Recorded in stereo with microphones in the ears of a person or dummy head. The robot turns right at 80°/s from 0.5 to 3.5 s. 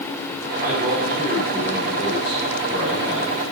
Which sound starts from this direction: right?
A man speaking, at 0.6 s.